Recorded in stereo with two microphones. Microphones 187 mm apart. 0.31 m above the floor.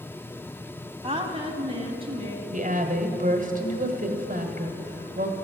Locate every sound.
1.0 s a woman speaking: 30° right (ahead or behind), 1.6 m
2.5 s a woman speaking: 45° right (ahead or behind), 1.4 m